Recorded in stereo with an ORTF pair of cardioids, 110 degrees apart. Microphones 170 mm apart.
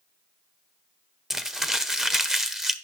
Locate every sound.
1.3 s crumpling: 5° right, 0.6 m